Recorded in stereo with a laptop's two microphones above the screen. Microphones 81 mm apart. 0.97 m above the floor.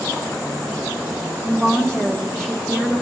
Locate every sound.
1.4 s a woman speaking: 5° left (ahead or behind), 1.9 m